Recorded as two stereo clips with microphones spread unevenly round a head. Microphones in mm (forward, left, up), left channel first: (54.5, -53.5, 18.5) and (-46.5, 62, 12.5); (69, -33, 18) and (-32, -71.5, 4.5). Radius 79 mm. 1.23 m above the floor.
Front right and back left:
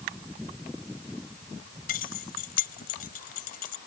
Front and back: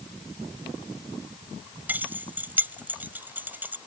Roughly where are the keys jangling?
Right.